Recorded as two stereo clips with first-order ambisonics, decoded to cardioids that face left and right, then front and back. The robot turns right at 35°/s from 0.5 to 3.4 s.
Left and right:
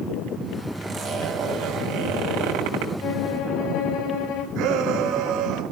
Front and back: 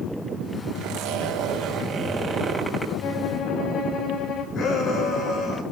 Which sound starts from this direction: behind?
A zipper, at 0.8 s.